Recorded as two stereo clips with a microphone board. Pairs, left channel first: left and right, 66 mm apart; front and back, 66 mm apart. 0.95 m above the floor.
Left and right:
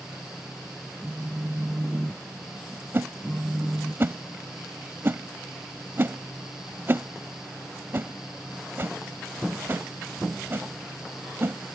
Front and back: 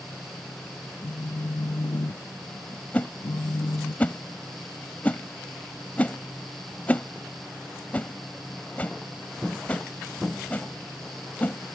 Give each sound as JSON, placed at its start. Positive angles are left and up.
{"t": 1.0, "sound": "a phone buzzing", "azimuth_deg": -5}
{"t": 2.9, "sound": "a whoosh", "azimuth_deg": -55}